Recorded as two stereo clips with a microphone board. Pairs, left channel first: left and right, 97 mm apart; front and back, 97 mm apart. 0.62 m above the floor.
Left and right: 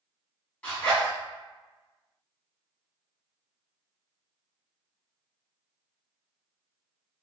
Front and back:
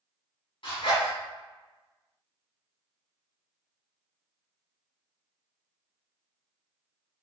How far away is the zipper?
About 1.7 m.